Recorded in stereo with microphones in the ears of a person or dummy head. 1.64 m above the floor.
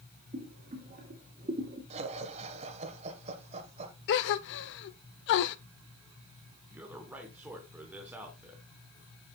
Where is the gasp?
65° left (ahead or behind), 0.6 m.